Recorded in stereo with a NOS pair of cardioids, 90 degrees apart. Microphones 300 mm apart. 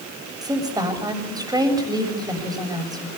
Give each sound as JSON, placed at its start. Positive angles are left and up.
{"t": 0.4, "sound": "a woman speaking", "azimuth_deg": -10, "distance_m": 7.5}